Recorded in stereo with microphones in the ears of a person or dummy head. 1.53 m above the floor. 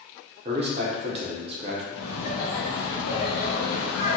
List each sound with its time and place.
0.5 s a man speaking: 30° right (ahead or behind), 0.6 m
1.9 s laughter: 70° left (ahead or behind), 1.5 m